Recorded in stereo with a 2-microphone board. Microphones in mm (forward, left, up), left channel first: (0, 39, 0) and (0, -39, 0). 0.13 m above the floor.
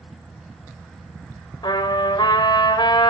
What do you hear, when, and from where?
1.6 s a trumpet: 65° left (ahead or behind), 3 m